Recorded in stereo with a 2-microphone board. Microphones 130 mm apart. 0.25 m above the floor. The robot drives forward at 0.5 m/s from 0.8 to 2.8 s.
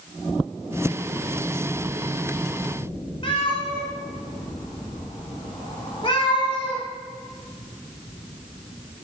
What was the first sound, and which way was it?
A cat meowing, 45° left (ahead or behind).